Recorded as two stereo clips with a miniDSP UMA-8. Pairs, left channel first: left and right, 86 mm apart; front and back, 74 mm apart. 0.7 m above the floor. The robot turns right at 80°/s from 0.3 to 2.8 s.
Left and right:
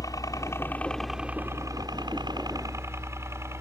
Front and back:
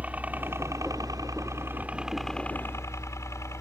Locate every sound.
0.0 s a helicopter: 115° left; by 3.6 s 40° right